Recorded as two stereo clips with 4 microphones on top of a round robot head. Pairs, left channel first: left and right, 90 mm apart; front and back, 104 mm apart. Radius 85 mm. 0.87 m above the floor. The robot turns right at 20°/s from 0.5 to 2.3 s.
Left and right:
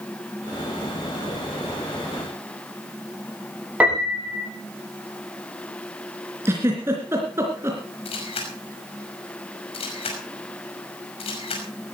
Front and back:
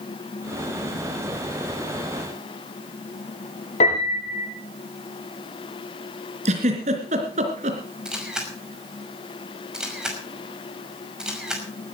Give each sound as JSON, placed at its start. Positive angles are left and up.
{"t": 3.8, "sound": "a piano", "azimuth_deg": -20, "distance_m": 5.5}
{"t": 6.5, "sound": "a giggle", "azimuth_deg": -160, "distance_m": 3.0}
{"t": 8.1, "sound": "a camera shutter", "azimuth_deg": 95, "distance_m": 5.5}